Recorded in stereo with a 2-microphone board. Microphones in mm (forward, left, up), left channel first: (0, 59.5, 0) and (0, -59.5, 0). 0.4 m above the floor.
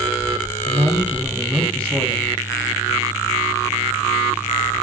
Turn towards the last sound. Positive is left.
turn(degrees=10)  # may be behind; listen again after turning